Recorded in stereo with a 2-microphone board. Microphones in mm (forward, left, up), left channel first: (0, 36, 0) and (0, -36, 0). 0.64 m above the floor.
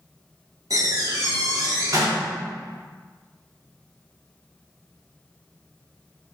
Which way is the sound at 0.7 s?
55° right (ahead or behind).